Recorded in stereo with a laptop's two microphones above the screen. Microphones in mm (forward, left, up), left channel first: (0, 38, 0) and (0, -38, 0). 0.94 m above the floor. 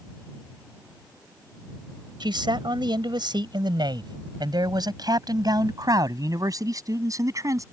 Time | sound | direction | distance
2.2 | a man speaking | 85° right | ?